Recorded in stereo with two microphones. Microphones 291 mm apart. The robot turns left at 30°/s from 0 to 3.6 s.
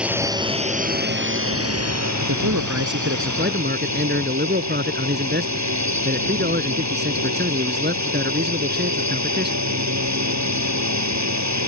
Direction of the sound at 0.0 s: 5° right.